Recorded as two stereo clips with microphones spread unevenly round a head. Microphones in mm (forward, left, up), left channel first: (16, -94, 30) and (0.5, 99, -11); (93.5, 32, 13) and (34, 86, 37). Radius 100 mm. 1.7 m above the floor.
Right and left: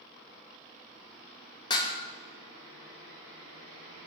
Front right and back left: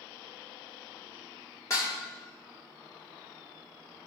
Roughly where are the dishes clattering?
Behind right.